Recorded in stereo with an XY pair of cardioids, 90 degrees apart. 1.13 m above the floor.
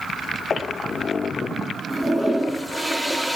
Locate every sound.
0.5 s a squeak: 40° left, 0.9 m
1.9 s a toilet flushing: 15° right, 2.5 m